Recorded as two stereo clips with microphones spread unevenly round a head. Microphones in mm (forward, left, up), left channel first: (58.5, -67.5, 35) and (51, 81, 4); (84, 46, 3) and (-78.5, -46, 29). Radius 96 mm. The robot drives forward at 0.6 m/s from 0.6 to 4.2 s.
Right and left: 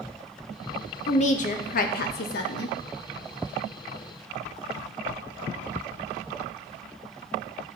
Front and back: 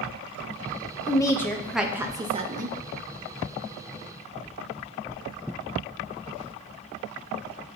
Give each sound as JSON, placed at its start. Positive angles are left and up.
{"t": 1.1, "sound": "a woman speaking", "azimuth_deg": -45, "distance_m": 1.1}